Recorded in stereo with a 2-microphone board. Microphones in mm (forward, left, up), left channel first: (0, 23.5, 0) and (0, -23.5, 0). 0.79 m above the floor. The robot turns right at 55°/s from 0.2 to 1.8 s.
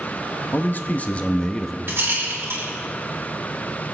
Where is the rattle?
50° right (ahead or behind), 3 m.